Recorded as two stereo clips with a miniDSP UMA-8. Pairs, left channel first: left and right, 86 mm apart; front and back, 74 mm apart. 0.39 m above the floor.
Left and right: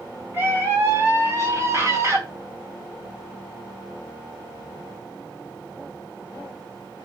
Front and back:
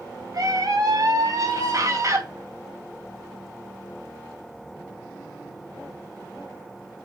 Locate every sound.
0.3 s a scream: 150° right, 3.5 m; by 2.2 s 140° right, 2.5 m